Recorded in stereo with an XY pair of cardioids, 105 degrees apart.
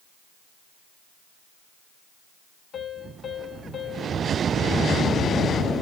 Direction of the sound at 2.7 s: 55° left.